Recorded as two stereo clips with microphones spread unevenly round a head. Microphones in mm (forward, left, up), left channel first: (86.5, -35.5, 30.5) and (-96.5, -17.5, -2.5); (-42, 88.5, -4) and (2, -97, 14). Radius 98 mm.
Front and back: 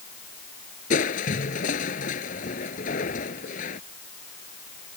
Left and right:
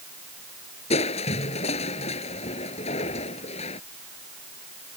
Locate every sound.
0.9 s crushing: 40° left